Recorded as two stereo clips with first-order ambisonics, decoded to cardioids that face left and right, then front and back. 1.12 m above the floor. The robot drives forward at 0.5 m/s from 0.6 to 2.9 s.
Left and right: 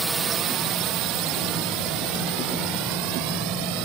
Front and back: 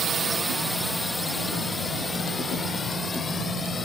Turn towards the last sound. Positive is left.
turn(degrees=-75)